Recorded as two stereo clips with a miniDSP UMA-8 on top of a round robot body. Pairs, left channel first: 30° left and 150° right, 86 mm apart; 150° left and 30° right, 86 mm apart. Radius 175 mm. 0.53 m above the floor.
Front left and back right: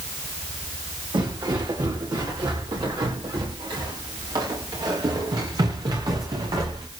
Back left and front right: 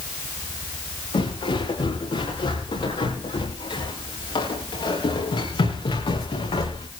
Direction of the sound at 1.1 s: 175° left.